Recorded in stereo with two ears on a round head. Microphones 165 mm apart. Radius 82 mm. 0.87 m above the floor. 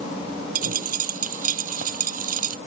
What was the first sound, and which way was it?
A dropped coin, 45° right (ahead or behind).